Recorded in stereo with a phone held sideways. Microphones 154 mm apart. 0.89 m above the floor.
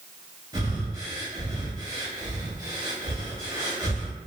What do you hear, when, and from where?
0.5 s breathing: 25° right (ahead or behind), 0.9 m